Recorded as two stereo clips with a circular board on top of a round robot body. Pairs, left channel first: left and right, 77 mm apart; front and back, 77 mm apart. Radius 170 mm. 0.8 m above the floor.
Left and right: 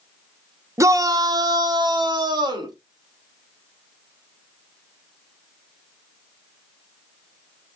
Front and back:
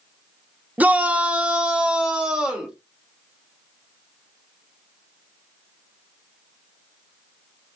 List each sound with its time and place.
0.8 s a shout: 120° right, 0.8 m; by 2.8 s 100° right, 1.9 m